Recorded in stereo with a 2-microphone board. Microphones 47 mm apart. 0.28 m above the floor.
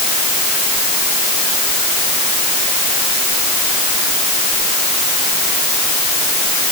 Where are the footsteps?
No footsteps in this recording.